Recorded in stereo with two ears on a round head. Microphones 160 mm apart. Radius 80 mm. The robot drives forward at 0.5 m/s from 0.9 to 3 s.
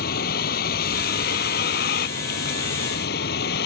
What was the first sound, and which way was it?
A vehicle, 55° left (ahead or behind).